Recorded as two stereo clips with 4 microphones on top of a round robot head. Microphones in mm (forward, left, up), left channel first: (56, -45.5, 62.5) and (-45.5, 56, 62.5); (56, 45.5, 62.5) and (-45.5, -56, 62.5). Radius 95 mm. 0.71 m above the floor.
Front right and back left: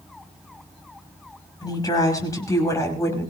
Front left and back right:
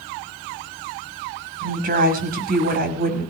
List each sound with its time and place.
1.6 s a woman speaking: 110° right, 6 m; by 3.3 s 120° right, 5.5 m